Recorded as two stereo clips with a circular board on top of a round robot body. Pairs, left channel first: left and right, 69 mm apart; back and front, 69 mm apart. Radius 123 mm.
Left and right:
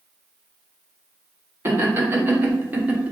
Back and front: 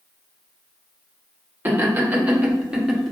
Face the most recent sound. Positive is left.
turn(degrees=-100)